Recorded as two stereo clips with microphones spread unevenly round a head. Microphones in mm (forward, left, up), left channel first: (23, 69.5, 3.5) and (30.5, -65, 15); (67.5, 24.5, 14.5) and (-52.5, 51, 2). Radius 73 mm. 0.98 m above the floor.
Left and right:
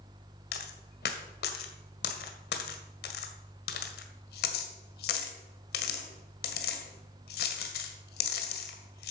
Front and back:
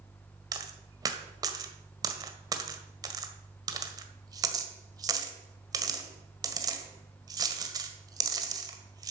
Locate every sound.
0.5 s a dropped coin: 110° left, 1.6 m